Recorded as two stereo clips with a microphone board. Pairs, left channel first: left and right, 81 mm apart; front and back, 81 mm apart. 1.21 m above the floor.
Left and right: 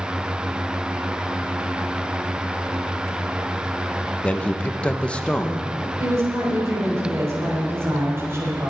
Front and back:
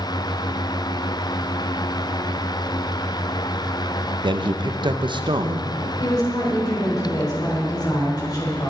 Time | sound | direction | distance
4.2 | a man speaking | 165° left | 0.8 m
6.0 | a woman speaking | 35° right | 4 m